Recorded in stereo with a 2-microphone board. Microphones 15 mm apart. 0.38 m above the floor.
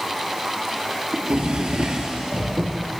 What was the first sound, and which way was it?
A drawer, 80° right.